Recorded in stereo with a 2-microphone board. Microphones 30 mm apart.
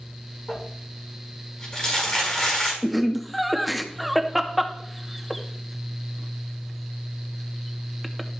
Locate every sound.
0.5 s crumpling: 25° left (ahead or behind), 4.5 m
2.8 s laughter: centre (ahead or behind), 0.7 m